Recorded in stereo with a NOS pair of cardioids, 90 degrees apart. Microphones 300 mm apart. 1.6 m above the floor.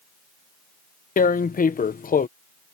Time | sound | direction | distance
1.2 | tearing paper | 30° left | ?